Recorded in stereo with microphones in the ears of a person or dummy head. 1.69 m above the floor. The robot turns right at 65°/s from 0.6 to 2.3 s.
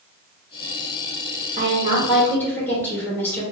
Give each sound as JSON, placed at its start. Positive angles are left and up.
{"t": 1.6, "sound": "a woman speaking", "azimuth_deg": -40, "distance_m": 1.3}